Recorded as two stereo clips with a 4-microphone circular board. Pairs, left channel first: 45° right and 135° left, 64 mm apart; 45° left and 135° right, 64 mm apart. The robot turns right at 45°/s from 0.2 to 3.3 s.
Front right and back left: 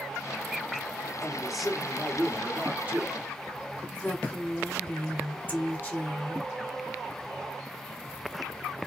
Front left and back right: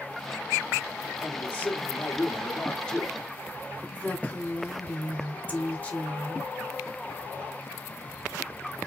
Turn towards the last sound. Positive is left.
turn(degrees=-5)